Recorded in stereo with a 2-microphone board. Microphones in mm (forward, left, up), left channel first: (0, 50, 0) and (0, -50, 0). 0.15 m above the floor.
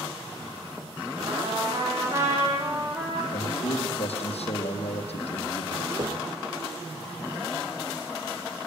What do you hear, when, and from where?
1.3 s a trumpet: 30° right (ahead or behind), 8 m
3.3 s a man speaking: 75° left (ahead or behind), 7 m
6.0 s knocking: 45° right (ahead or behind), 4 m